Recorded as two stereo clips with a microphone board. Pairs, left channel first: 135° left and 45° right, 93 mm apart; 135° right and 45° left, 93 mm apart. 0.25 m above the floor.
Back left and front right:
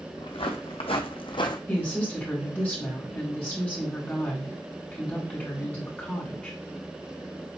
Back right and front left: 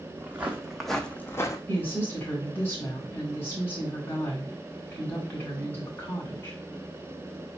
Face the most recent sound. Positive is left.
turn(degrees=-170)